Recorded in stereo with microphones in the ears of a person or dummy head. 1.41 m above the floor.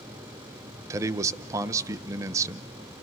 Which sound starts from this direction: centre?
A man speaking, at 0.9 s.